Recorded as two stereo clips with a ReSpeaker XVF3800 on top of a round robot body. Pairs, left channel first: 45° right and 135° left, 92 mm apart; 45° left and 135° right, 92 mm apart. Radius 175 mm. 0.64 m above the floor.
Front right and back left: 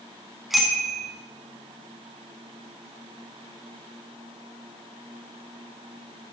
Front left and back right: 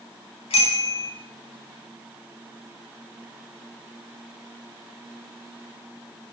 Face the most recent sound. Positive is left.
turn(degrees=50)